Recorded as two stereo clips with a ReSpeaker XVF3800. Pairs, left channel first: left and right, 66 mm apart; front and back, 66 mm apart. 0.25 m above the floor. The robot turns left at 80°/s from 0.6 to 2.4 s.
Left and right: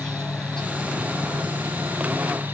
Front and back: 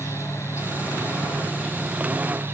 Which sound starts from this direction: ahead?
An insect, at 0.0 s.